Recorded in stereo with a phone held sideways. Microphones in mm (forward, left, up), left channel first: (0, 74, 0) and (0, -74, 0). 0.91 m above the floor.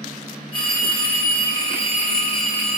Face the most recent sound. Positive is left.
turn(degrees=30)  # may be behind; listen again after turning